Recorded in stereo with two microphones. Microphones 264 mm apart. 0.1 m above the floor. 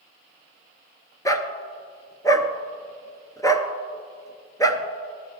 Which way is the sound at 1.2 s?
15° left (ahead or behind).